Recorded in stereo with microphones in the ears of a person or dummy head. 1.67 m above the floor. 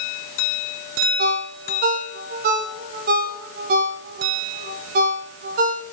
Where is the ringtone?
45° right (ahead or behind), 0.7 m.